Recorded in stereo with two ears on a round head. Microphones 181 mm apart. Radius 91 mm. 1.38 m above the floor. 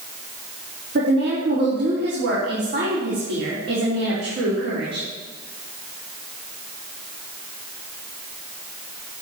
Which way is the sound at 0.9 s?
55° right (ahead or behind).